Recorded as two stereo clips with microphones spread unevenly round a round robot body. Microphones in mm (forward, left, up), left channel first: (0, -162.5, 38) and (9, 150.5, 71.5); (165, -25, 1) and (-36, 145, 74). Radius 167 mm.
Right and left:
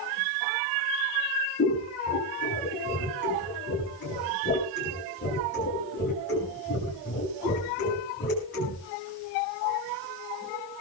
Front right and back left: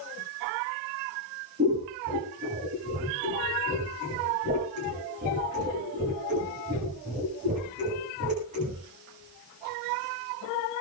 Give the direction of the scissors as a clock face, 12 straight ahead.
5 o'clock.